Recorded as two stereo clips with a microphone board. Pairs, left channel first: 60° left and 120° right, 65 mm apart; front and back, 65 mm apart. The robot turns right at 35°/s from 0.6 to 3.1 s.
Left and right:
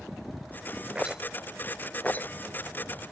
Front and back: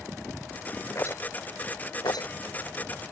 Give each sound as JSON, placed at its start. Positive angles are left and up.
{"t": 0.9, "sound": "a rattle", "azimuth_deg": -45}